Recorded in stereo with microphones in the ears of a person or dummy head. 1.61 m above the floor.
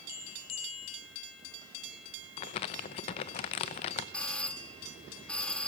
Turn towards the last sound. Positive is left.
turn(degrees=5)  # may be behind; listen again after turning